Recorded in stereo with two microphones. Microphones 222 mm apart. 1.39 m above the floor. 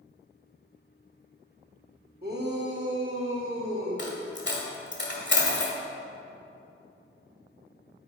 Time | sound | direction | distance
2.2 | a shout | 45° right (ahead or behind) | 1.3 m
4.0 | a dropped coin | 55° left (ahead or behind) | 1.6 m